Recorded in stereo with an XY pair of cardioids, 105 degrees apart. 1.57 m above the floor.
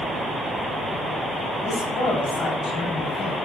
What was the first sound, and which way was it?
A man speaking, 50° left.